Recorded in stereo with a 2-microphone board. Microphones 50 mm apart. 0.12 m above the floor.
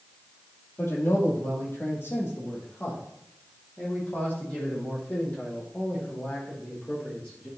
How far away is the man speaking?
About 3.5 m.